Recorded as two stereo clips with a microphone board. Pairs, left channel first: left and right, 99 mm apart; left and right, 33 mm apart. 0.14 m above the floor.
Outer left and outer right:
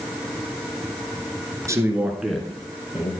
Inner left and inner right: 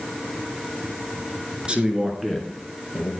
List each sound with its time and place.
1.7 s a man speaking: 30° right (ahead or behind), 1.8 m; by 3.1 s 40° left (ahead or behind), 1.8 m